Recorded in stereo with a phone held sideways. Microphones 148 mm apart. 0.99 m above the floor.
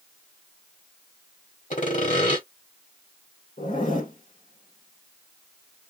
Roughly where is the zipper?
Left.